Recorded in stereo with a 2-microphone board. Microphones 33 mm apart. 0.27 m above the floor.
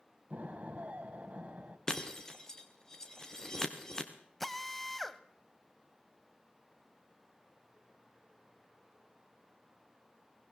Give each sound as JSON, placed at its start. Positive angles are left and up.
{"t": 0.3, "sound": "an explosion", "side_deg": -45, "distance_m": 2.0}
{"t": 1.9, "sound": "breaking glass", "side_deg": 15, "distance_m": 3.0}
{"t": 4.4, "sound": "a drill", "side_deg": 5, "distance_m": 1.1}